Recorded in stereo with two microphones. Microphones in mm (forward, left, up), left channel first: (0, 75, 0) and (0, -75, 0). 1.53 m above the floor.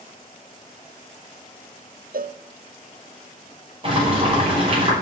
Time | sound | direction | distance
2.1 | a cowbell | 70° right (ahead or behind) | 0.6 m
3.8 | boiling | 40° right (ahead or behind) | 6 m